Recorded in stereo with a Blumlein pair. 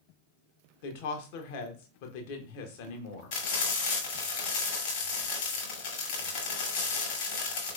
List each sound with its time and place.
0.8 s a woman speaking: 50° left, 0.9 m
3.3 s frying: 50° left, 1.7 m